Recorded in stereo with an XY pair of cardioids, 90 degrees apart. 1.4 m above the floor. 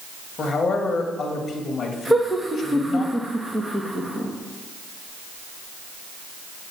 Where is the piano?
I don't hear a piano.